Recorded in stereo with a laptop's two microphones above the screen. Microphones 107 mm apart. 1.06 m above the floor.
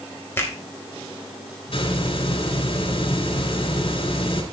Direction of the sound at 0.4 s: 25° left (ahead or behind).